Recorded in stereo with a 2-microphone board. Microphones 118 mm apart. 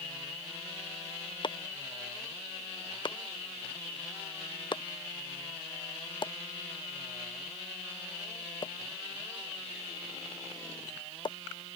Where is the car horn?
I don't hear a car horn.